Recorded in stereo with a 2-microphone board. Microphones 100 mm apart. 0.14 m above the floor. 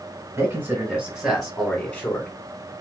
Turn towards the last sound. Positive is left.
turn(degrees=25)  # may be behind; listen again after turning